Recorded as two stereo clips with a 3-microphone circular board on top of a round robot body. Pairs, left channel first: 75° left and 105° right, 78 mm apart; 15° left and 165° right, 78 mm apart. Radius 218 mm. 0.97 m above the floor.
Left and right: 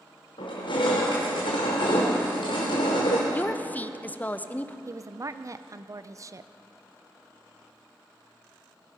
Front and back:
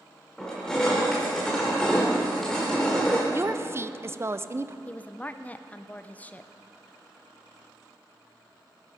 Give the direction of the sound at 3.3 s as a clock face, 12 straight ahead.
7 o'clock.